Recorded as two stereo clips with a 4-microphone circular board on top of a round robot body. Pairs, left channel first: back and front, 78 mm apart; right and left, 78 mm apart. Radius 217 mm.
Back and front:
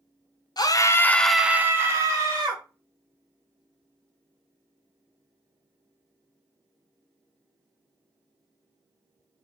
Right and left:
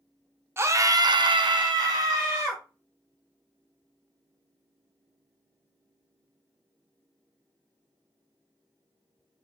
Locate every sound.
0.6 s a scream: 150° left, 0.6 m; by 2.6 s 40° left, 0.9 m